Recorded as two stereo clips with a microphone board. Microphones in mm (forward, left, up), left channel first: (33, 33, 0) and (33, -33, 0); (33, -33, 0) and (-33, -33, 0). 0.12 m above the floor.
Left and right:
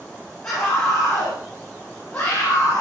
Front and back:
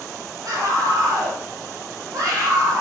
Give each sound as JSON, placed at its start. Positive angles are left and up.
{"t": 0.4, "sound": "a scream", "azimuth_deg": 170, "distance_m": 3.5}